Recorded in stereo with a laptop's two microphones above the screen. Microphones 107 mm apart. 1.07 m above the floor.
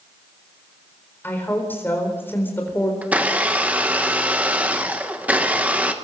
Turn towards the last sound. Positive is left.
turn(degrees=-15)  # may be behind; listen again after turning